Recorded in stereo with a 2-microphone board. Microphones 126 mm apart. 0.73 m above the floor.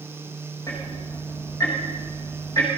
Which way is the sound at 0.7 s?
25° left (ahead or behind).